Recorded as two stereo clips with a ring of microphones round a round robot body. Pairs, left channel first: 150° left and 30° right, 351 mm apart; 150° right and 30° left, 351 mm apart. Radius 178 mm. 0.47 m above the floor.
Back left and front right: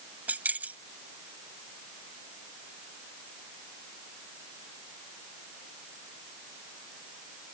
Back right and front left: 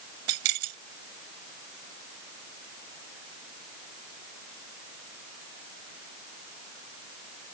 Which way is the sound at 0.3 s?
55° left.